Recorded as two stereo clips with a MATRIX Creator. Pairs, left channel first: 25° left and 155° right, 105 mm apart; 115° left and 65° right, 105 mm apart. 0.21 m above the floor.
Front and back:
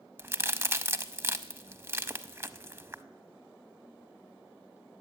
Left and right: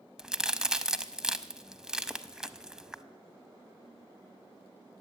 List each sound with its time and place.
0.2 s a crack: 140° right, 0.6 m